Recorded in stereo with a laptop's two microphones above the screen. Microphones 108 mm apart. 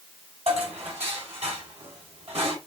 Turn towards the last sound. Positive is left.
turn(degrees=-85)